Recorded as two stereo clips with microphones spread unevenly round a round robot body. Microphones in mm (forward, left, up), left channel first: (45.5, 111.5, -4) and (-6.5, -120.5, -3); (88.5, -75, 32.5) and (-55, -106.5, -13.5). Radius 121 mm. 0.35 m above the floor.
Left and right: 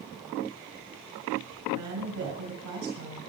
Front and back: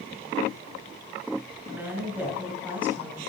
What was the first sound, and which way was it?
A woman speaking, 95° right.